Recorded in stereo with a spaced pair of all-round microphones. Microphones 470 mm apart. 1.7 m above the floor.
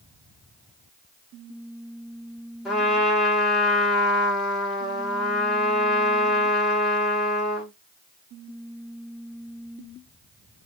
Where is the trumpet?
Centre (ahead or behind), 1.5 m.